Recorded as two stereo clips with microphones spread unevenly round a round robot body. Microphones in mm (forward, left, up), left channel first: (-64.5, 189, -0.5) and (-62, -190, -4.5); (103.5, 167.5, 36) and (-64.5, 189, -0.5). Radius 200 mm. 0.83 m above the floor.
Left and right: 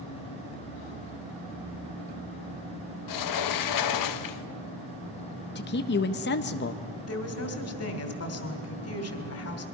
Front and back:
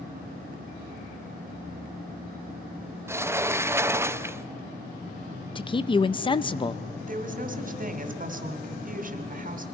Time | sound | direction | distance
3.1 | a sliding door | 110° left | 0.8 m
5.5 | a man speaking | 55° left | 0.6 m
7.1 | a woman speaking | 140° left | 2.5 m